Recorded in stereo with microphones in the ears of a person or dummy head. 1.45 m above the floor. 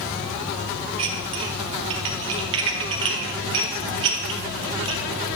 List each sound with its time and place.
1.0 s dishes clattering: 25° right (ahead or behind), 0.8 m